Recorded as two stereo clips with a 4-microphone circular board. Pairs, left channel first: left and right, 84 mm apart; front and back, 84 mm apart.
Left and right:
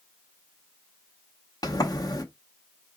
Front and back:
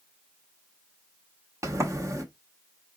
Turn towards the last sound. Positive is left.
turn(degrees=130)